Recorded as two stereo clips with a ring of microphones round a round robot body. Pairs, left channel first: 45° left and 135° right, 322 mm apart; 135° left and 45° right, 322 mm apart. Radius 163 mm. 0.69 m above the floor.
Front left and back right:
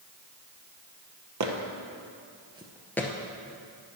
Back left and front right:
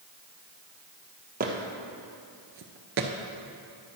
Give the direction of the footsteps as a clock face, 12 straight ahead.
4 o'clock.